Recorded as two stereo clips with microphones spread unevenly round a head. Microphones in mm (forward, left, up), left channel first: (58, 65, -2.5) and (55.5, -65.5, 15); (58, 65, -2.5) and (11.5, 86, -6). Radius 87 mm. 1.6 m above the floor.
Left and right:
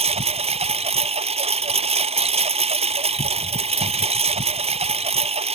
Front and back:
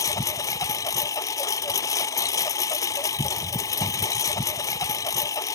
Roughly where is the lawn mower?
Ahead right.